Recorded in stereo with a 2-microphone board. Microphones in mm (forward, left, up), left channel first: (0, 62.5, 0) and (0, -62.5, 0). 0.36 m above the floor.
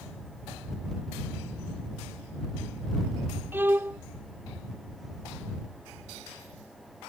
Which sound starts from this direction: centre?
A violin, at 3.5 s.